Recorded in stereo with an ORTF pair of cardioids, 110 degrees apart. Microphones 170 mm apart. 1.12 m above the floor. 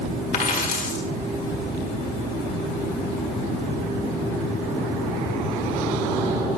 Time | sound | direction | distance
0.3 | a dropped coin | 55° left | 1.6 m